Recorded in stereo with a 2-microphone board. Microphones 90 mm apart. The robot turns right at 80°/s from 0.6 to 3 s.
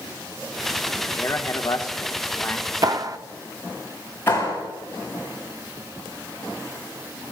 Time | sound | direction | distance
1.1 | a man speaking | 35° left | 1.2 m
2.8 | a clap | 40° right (ahead or behind) | 0.5 m
4.3 | a clap | 25° left (ahead or behind) | 7.5 m